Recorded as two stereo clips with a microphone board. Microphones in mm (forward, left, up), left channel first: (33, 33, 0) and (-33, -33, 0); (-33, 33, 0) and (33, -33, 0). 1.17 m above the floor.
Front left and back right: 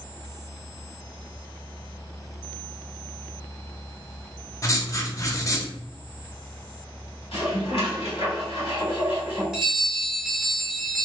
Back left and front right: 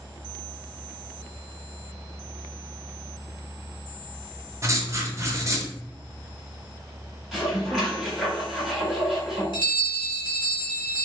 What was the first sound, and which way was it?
Writing, 5° left.